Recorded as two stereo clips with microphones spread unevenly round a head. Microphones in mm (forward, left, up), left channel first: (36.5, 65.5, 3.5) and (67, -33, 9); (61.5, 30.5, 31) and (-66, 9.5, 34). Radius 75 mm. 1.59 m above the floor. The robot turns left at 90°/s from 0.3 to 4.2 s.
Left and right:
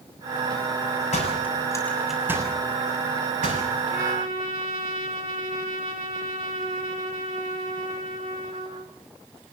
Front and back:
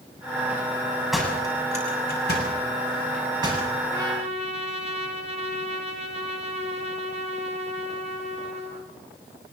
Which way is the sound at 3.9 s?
95° right.